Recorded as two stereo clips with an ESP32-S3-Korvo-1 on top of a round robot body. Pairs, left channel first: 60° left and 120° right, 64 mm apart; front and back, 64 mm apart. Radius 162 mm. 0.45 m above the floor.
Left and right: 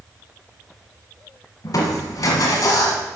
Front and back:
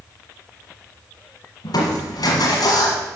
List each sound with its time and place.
1.6 s crushing: 25° left, 1.5 m